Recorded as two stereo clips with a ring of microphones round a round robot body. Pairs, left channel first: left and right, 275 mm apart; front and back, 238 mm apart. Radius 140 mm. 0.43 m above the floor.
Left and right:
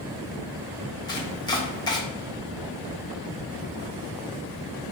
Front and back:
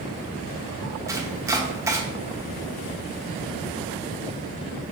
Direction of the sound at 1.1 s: 130° left.